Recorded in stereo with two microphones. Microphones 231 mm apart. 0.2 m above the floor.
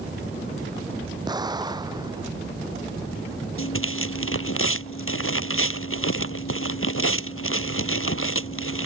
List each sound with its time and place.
1.3 s an explosion: 20° right (ahead or behind)
3.6 s tearing paper: 70° left (ahead or behind)